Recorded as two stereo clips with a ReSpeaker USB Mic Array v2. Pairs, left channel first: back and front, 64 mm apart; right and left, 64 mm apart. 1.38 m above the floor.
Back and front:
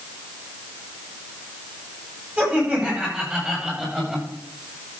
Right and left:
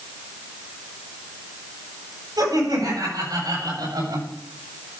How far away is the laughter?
About 8.5 m.